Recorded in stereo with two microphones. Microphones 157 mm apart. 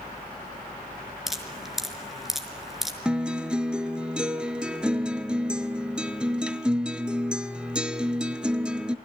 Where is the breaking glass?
I don't hear breaking glass.